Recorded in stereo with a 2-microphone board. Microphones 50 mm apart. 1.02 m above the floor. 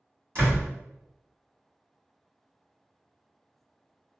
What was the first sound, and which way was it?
A door slam, 50° right (ahead or behind).